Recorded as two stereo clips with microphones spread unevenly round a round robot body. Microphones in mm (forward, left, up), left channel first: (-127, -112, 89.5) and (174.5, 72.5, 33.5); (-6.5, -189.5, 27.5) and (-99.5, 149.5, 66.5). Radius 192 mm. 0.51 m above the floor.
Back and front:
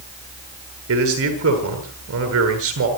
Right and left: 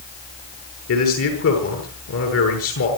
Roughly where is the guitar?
No guitar in this recording.